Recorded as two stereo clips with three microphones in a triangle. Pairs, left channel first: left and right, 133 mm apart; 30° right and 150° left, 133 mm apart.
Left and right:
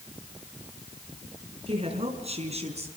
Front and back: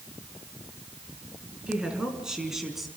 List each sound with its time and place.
1.7 s a woman speaking: 125° right, 5 m; by 2.9 s 120° right, 4 m